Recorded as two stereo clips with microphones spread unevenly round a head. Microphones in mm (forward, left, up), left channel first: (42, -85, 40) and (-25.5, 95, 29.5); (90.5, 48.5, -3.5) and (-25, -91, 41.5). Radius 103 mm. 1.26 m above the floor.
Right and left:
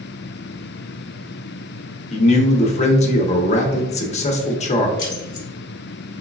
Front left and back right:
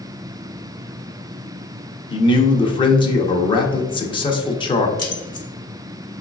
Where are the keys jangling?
20° right, 1.3 m.